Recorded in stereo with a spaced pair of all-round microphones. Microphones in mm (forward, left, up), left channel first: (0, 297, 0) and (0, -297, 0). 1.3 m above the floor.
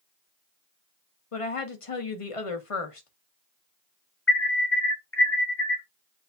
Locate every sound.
1.3 s a woman speaking: 60° left (ahead or behind), 1.1 m
4.3 s an alarm: 20° left (ahead or behind), 1.1 m